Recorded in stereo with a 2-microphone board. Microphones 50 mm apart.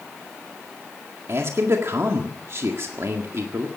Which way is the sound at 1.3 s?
60° right (ahead or behind).